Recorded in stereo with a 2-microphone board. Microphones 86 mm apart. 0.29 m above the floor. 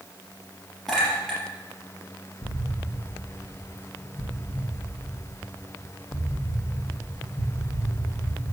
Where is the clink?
Centre (ahead or behind), 4 m.